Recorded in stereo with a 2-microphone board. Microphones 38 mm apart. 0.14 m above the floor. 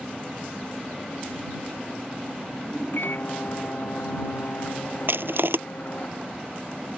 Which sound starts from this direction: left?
A microwave, at 2.9 s.